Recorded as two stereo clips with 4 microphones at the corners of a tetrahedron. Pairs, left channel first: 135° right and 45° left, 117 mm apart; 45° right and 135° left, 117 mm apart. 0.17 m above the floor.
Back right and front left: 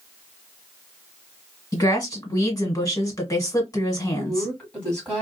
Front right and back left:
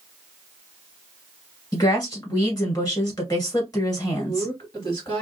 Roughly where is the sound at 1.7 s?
Right.